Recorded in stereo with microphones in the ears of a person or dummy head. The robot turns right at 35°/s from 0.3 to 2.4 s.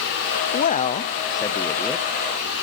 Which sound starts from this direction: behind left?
A man speaking, at 0.5 s.